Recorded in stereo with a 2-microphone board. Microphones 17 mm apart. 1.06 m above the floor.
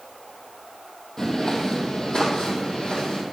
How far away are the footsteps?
About 1.7 m.